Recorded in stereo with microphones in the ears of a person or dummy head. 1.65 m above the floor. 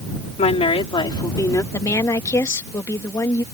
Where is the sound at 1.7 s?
20° left (ahead or behind).